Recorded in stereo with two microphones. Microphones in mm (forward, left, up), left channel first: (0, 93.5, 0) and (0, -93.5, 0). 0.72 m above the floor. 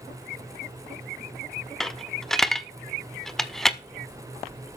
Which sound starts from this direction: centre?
A dropped coin, at 1.8 s.